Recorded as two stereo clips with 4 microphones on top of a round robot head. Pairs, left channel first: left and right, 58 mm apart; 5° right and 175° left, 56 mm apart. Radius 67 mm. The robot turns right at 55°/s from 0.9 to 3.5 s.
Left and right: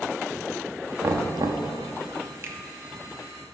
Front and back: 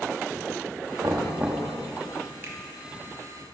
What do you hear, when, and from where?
1.0 s knocking: 140° right, 0.8 m; by 1.7 s 100° right, 0.8 m
2.4 s a finger snap: 135° right, 1.3 m; by 2.6 s 130° right, 1.3 m